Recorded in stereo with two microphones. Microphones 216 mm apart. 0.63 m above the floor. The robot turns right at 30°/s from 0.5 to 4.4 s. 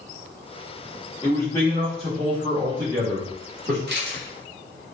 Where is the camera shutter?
50° right (ahead or behind), 1.4 m; by 4.2 s 55° right (ahead or behind), 1.4 m.